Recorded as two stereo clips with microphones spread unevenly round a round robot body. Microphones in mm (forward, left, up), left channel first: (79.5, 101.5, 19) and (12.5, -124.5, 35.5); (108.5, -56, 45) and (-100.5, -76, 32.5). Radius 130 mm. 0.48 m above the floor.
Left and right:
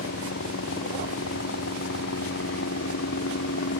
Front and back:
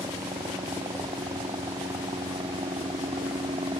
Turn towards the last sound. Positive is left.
turn(degrees=110)